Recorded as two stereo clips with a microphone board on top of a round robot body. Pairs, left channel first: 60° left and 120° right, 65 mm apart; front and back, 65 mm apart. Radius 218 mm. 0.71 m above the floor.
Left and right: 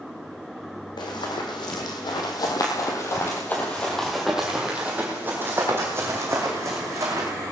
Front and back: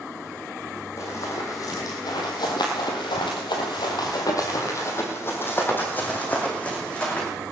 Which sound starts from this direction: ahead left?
Running footsteps, at 1.0 s.